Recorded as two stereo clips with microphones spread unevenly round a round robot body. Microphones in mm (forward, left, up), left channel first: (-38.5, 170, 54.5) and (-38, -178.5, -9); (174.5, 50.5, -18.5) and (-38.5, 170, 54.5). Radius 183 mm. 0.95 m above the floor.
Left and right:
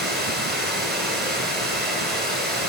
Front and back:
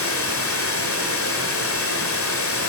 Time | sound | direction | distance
0.0 | running water | 5° left | 1.8 m